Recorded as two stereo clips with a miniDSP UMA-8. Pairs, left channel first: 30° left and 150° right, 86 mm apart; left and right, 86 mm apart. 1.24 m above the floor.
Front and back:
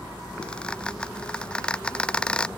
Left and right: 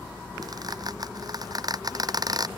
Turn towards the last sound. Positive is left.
turn(degrees=-50)